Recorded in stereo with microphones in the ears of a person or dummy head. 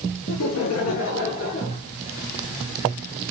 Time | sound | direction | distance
0.3 | laughter | 80° left | 1.9 m